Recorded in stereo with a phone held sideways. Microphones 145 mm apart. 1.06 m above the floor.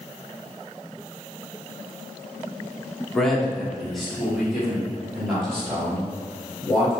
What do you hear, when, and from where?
3.1 s a man speaking: centre (ahead or behind), 0.9 m; by 6.9 s 5° right (ahead or behind), 3.5 m